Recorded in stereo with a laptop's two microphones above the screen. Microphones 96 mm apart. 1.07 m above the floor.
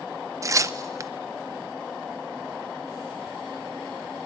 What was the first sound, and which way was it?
Tearing paper, 35° right (ahead or behind).